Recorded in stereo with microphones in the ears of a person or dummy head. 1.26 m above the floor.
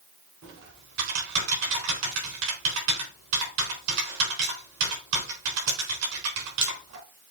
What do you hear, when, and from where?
0.4 s typing on a keyboard: 65° right (ahead or behind), 3.5 m